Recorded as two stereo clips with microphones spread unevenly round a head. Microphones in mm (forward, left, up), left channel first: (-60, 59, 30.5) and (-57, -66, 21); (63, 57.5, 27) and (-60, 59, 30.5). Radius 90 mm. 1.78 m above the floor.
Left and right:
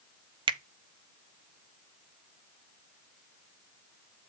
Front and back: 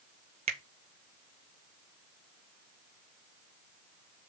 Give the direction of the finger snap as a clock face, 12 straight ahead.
4 o'clock.